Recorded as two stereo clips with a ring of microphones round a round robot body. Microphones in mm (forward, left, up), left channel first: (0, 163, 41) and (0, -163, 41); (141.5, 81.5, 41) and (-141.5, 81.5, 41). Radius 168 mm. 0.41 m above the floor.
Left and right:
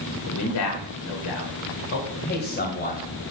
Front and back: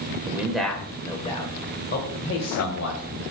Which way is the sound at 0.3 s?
100° left.